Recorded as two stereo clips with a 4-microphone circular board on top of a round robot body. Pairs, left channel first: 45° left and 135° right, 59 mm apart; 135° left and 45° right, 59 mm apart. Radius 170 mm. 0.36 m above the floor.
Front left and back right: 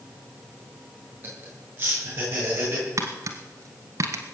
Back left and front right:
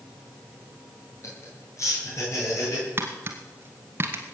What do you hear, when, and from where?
1.2 s laughter: 175° left, 9.5 m
3.0 s tapping: 100° right, 1.5 m